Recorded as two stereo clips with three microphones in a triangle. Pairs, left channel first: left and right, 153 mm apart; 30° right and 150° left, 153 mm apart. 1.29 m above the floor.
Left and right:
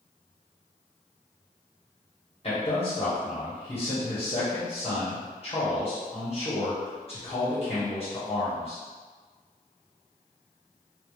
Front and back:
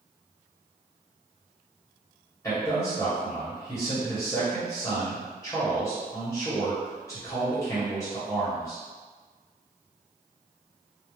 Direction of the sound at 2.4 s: 40° left.